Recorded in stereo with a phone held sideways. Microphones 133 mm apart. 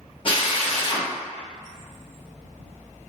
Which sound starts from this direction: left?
A drill, at 0.2 s.